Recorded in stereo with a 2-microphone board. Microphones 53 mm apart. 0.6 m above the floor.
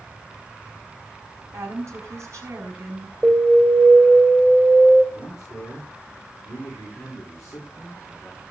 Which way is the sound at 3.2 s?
15° right (ahead or behind).